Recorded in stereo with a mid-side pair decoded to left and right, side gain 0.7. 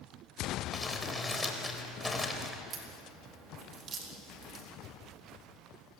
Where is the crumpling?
10° left, 4 m.